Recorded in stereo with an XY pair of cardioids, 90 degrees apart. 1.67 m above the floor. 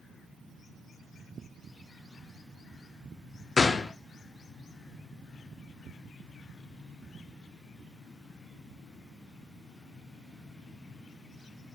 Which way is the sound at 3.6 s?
35° left.